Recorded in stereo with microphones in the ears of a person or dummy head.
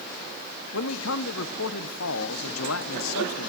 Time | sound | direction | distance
0.7 | a man speaking | 80° left | 1.5 m